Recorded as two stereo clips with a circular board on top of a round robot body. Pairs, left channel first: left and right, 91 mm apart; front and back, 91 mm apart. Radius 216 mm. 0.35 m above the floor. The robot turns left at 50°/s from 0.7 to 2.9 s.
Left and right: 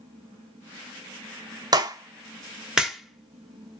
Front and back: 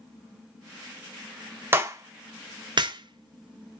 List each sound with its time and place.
1.7 s a clap: 120° right, 0.9 m; by 3.8 s straight behind, 0.9 m